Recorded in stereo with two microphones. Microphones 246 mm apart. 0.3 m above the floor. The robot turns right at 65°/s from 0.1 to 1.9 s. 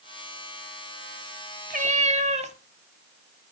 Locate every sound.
1.7 s a cat meowing: 35° right (ahead or behind), 0.8 m; by 2.5 s 30° right (ahead or behind), 0.8 m